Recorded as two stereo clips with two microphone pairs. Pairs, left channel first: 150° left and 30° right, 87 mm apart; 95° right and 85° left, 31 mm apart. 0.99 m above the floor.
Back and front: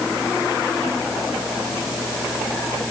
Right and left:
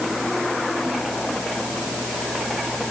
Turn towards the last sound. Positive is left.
No sound to turn to.